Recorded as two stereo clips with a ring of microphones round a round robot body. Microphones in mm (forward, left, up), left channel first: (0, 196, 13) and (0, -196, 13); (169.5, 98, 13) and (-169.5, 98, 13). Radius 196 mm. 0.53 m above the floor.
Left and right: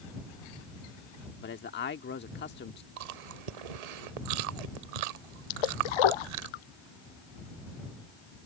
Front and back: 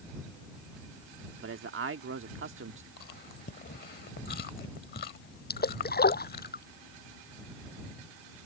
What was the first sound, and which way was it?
A man speaking, 145° left.